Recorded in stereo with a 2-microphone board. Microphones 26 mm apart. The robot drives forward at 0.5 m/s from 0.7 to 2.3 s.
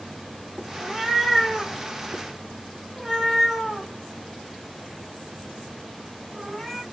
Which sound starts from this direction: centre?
A cat meowing, at 0.8 s.